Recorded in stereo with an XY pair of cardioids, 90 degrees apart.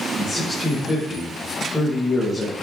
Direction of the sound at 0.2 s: 20° left.